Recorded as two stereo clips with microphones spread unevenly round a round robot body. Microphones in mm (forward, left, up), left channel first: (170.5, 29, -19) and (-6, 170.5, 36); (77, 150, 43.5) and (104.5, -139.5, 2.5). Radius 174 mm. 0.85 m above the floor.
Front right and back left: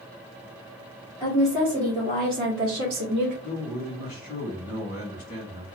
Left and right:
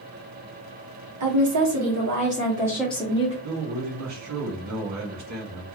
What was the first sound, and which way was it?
A woman speaking, 120° right.